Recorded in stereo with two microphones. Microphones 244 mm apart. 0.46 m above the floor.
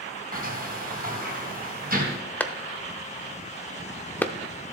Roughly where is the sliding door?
Right.